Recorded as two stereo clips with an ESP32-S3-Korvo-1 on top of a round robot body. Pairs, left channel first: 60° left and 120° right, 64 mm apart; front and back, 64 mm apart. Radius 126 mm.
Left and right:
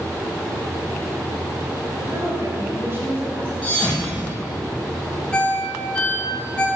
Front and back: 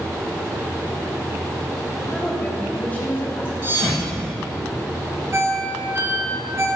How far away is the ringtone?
About 1.8 m.